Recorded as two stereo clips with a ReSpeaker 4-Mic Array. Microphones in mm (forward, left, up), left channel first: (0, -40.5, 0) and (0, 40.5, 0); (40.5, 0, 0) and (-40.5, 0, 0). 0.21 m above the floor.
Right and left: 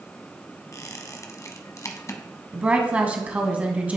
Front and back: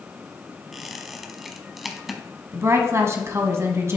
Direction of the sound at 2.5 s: 155° left.